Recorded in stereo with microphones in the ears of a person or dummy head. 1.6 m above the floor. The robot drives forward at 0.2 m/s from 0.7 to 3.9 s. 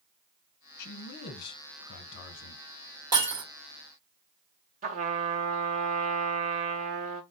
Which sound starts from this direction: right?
A trumpet, at 4.8 s.